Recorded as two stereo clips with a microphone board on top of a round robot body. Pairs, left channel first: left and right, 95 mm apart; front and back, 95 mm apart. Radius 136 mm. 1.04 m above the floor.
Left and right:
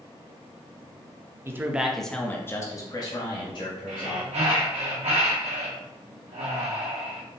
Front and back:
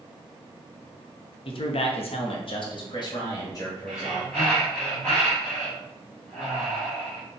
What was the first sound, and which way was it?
A man speaking, 25° right.